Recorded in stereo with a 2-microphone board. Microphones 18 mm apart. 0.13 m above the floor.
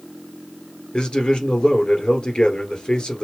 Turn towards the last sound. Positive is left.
turn(degrees=55)  # may be behind; listen again after turning